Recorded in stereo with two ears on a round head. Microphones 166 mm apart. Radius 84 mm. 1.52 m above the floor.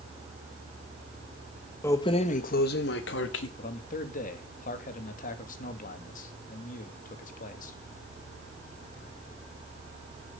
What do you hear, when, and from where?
1.8 s keys jangling: 10° left (ahead or behind), 1.0 m; by 3.5 s 70° left (ahead or behind), 2 m
3.6 s a man speaking: 50° left (ahead or behind), 2.5 m